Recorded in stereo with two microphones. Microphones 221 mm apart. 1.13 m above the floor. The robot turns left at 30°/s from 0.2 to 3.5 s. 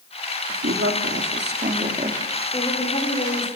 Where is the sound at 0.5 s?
100° right, 2 m; by 2.2 s 155° right, 2 m.